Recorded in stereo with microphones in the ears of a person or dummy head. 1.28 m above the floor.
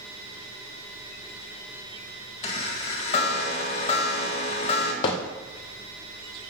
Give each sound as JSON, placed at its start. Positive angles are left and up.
{"t": 2.4, "sound": "a chime", "side_deg": 40, "distance_m": 1.4}
{"t": 5.0, "sound": "hammering", "side_deg": 25, "distance_m": 0.6}